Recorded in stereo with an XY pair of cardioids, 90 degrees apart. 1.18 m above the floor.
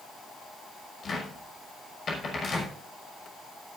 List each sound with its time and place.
1.0 s a cupboard door: 50° left, 6 m